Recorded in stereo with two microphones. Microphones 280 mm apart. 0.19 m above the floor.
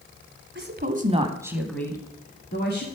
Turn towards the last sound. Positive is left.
turn(degrees=40)  # may be behind; listen again after turning